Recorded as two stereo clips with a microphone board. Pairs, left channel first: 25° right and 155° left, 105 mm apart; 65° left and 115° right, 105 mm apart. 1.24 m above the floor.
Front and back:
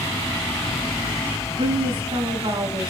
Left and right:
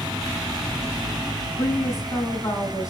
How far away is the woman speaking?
About 7 m.